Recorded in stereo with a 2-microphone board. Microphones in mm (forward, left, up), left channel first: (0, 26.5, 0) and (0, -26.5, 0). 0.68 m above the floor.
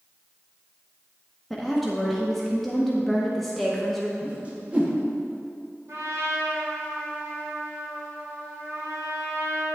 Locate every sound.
1.5 s a woman speaking: centre (ahead or behind), 0.7 m
4.2 s a whoosh: 25° right (ahead or behind), 1.0 m
5.9 s a trumpet: 60° right (ahead or behind), 1.6 m